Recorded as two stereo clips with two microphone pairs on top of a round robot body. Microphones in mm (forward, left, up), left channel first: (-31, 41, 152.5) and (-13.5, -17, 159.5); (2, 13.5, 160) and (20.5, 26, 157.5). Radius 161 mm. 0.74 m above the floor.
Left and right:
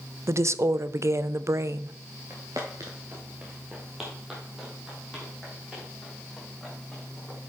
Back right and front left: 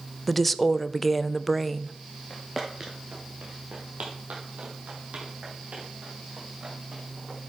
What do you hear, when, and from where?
0.3 s a woman speaking: 55° right, 0.6 m
2.3 s footsteps: 100° right, 0.8 m; by 7.4 s 15° left, 4 m